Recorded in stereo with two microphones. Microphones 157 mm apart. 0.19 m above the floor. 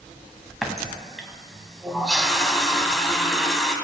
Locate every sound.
0.6 s a running tap: centre (ahead or behind), 0.8 m